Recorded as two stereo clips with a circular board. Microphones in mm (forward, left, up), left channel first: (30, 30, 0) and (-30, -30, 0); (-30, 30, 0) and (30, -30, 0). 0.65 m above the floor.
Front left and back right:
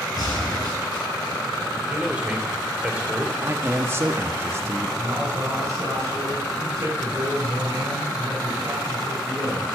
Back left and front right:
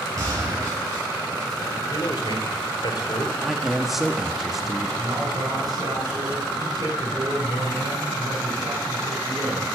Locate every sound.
0.2 s a gunshot: 5° left, 8.5 m
1.9 s a man speaking: 150° left, 2.5 m
3.4 s a man speaking: 125° right, 1.1 m
5.0 s a man speaking: 85° right, 5 m